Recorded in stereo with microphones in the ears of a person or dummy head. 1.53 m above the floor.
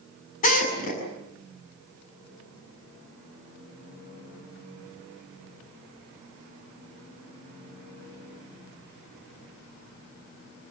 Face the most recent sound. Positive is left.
turn(degrees=45)  # may be behind; listen again after turning